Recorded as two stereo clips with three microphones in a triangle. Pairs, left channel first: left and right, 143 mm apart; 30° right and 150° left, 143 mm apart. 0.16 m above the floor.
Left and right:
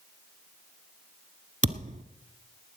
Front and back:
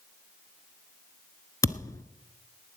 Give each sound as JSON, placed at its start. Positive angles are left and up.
{"t": 1.6, "sound": "a thud", "azimuth_deg": -95, "distance_m": 1.0}